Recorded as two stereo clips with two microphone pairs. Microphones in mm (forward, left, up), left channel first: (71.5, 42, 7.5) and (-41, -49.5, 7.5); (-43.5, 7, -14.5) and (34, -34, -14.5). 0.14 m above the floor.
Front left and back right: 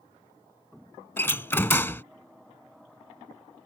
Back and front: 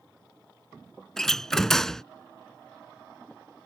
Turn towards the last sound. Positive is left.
turn(degrees=75)